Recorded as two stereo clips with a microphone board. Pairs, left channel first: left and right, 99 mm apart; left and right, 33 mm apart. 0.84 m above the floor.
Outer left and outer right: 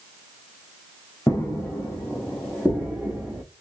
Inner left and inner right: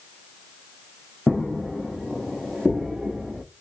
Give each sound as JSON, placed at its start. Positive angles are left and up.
{"t": 1.3, "sound": "footsteps", "side_deg": 30, "distance_m": 2.5}